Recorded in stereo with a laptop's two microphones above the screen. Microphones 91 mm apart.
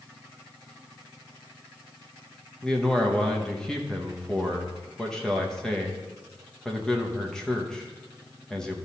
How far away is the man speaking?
About 0.8 m.